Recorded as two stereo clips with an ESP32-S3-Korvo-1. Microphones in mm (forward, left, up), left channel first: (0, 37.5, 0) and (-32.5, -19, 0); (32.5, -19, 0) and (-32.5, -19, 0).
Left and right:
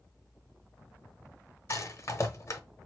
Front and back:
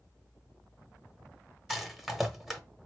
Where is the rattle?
95° left, 0.8 m.